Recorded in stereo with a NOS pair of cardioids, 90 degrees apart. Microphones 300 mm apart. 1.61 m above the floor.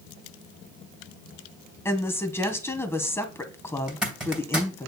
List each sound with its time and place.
1.9 s a woman speaking: 10° left, 1.6 m
3.9 s a zipper: straight ahead, 2.5 m